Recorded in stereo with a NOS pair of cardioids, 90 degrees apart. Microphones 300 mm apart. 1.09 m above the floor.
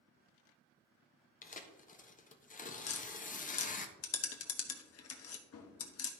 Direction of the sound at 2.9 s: 55° left.